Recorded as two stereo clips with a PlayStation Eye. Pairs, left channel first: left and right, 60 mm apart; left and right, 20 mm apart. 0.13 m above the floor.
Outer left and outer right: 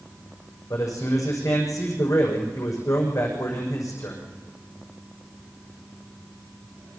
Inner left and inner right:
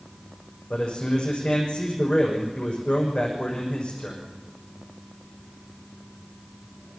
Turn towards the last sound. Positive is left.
turn(degrees=70)  # may be behind; listen again after turning